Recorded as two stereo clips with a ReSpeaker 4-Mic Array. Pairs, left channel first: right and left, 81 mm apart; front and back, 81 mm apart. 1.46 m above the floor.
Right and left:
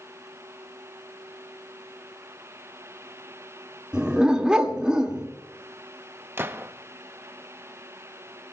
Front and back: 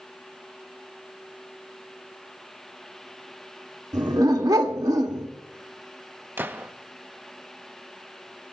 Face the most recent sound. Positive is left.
turn(degrees=130)